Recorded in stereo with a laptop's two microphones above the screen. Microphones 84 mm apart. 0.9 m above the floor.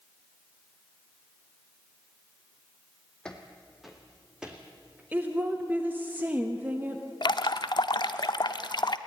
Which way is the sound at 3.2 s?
10° left (ahead or behind).